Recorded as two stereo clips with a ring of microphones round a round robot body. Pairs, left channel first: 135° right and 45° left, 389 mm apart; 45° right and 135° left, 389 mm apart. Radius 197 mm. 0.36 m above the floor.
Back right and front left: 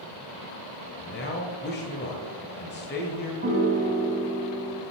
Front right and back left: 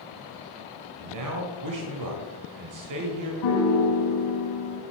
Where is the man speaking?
165° left, 1.5 m.